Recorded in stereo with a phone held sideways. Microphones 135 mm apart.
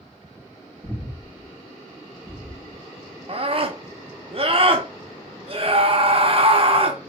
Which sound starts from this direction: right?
A scream, at 3.3 s.